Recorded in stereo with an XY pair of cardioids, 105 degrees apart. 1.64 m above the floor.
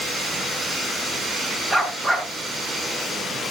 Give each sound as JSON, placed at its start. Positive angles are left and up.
{"t": 1.7, "sound": "a dog barking", "azimuth_deg": -15, "distance_m": 7.0}